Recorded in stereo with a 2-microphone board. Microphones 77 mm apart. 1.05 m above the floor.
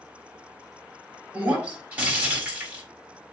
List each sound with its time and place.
1.3 s breaking glass: 20° right (ahead or behind), 4 m